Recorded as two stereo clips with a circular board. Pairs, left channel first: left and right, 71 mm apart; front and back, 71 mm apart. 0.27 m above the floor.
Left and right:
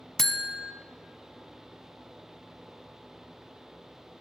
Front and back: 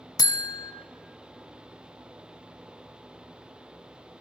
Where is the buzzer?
5° left, 0.7 m.